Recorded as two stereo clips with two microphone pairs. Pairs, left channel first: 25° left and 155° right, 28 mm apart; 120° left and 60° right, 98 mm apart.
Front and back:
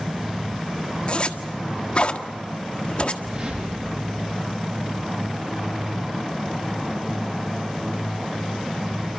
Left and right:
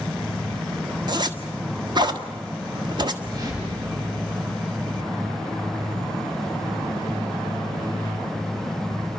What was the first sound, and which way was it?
A zipper, 20° right.